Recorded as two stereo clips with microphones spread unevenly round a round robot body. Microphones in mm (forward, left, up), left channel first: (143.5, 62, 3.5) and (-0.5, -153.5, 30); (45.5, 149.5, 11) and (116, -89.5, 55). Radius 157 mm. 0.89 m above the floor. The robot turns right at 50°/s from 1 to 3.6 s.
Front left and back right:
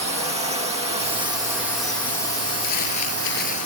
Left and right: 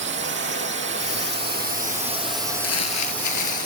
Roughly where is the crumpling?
Left.